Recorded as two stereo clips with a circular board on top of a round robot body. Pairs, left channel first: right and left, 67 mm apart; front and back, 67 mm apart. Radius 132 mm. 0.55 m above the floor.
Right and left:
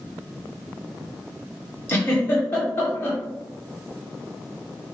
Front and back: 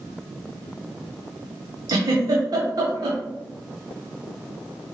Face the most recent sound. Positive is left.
turn(degrees=-150)